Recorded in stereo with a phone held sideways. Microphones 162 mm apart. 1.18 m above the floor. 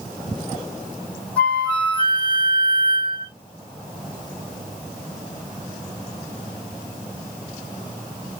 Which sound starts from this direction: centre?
A flute, at 1.4 s.